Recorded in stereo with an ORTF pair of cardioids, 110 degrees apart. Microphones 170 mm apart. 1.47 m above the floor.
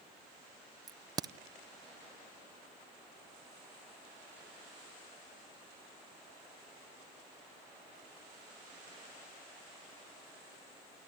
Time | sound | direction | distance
0.9 | a crack | 25° right | 0.7 m